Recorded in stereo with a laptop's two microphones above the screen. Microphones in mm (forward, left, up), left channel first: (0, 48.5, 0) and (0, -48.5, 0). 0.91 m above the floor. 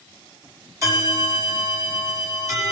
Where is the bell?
30° right (ahead or behind), 5 m.